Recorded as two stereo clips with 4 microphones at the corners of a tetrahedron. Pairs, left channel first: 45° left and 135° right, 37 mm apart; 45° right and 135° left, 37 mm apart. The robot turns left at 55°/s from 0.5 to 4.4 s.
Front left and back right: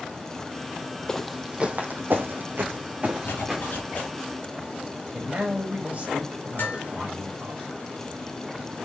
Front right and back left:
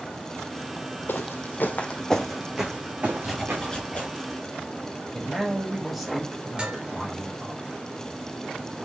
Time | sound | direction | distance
1.1 | footsteps | 25° right | 0.6 m
3.2 | a zipper | 45° left | 2 m
5.1 | a man speaking | 130° right | 1.5 m
6.6 | dishes clattering | 75° left | 2.5 m